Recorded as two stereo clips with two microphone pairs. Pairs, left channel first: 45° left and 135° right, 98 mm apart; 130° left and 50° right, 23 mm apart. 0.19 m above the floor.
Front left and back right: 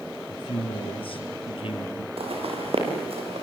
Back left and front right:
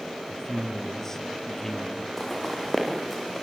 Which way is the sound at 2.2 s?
155° right.